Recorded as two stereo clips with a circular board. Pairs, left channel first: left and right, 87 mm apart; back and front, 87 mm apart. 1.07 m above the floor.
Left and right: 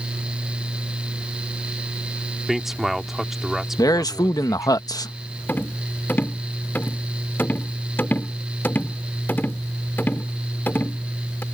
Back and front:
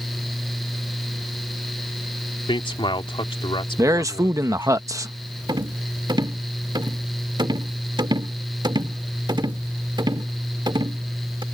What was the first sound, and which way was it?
A man speaking, 175° right.